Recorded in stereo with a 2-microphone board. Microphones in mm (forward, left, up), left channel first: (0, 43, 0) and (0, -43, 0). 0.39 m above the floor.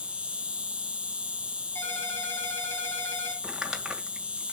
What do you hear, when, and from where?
0.0 s an insect: 10° right (ahead or behind), 0.8 m
1.8 s a ringtone: 25° left (ahead or behind), 10 m
3.4 s crumpling: 5° right (ahead or behind), 1.8 m